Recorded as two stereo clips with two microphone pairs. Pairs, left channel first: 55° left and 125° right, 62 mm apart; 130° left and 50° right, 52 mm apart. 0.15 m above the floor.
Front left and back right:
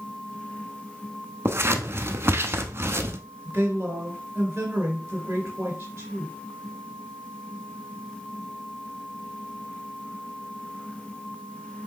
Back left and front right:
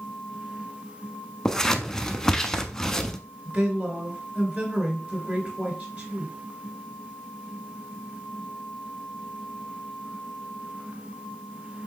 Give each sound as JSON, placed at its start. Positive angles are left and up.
{"t": 1.4, "sound": "scissors", "azimuth_deg": -155, "distance_m": 0.5}
{"t": 3.5, "sound": "a woman speaking", "azimuth_deg": -85, "distance_m": 2.0}